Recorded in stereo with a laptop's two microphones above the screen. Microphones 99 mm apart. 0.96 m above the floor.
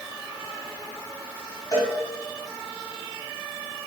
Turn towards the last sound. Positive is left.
turn(degrees=40)  # may be behind; listen again after turning